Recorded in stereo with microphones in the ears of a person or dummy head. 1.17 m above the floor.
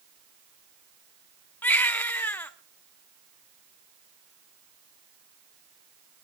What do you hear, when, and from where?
1.6 s a baby crying: 15° left (ahead or behind), 1.2 m